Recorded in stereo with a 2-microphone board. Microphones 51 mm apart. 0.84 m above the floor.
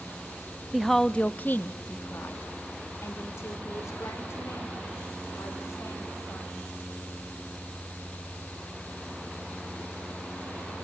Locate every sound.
0.7 s a woman speaking: 5° right (ahead or behind), 0.7 m; by 6.8 s 85° left, 4.5 m